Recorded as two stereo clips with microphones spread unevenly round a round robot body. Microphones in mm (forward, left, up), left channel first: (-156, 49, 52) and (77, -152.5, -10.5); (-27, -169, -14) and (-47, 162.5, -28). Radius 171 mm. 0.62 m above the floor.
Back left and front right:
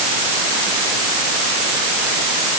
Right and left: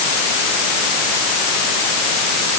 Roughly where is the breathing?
I don't hear breathing.